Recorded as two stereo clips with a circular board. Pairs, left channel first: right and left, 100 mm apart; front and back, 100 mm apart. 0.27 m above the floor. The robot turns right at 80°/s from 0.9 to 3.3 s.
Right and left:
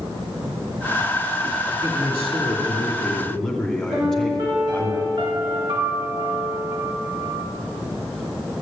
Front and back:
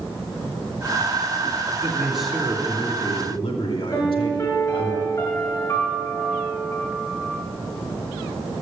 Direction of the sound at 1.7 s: 130° right.